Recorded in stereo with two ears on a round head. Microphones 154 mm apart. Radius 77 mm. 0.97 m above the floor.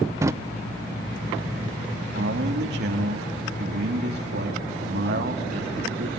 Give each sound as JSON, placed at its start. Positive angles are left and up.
{"t": 0.2, "sound": "a drawer", "side_deg": -15, "distance_m": 0.5}
{"t": 2.1, "sound": "a man speaking", "side_deg": -70, "distance_m": 2.0}